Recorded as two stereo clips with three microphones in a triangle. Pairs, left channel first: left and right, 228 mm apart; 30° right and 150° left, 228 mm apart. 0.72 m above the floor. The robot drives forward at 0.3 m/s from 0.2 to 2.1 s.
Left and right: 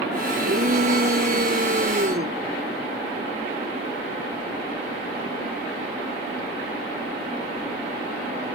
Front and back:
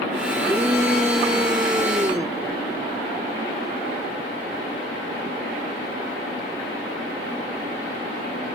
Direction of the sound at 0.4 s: 130° right.